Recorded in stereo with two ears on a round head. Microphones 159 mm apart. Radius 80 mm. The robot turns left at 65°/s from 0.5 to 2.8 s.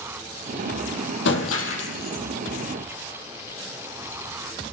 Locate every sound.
1.2 s breaking glass: 110° left, 6 m; by 2.2 s 45° left, 6 m